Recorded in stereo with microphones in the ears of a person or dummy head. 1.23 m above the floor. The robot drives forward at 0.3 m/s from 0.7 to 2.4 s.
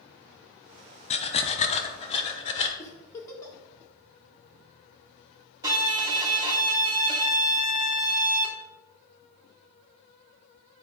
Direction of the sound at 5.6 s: 20° right (ahead or behind).